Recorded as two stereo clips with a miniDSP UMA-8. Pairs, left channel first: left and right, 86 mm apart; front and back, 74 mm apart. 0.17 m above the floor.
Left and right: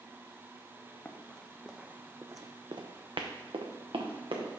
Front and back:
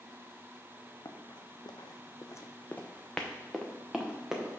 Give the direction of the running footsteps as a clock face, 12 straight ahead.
11 o'clock.